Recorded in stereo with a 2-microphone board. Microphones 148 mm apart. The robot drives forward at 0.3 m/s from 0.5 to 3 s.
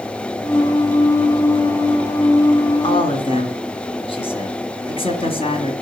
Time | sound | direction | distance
2.8 | a man speaking | 40° left (ahead or behind) | 2 m